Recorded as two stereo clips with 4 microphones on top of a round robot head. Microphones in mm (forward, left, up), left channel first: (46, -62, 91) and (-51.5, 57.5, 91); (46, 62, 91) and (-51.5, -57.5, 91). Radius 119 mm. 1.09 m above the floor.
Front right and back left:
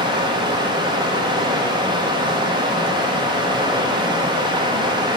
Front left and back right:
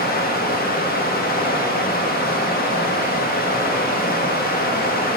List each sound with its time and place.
0.0 s running water: 70° left, 1.0 m